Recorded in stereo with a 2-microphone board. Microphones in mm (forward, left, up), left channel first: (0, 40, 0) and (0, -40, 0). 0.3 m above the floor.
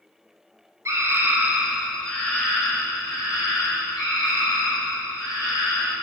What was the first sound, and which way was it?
A scream, 40° right (ahead or behind).